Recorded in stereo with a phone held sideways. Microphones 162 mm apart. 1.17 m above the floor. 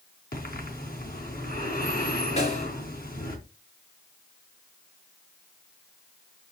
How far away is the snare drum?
About 3 m.